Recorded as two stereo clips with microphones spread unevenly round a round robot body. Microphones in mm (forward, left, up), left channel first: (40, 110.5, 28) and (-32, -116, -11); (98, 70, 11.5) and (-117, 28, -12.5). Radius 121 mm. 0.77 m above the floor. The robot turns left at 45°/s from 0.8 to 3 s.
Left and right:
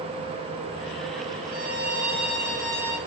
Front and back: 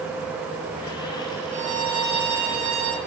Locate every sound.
1.5 s a violin: 145° right, 4.5 m; by 3.0 s 150° left, 4.5 m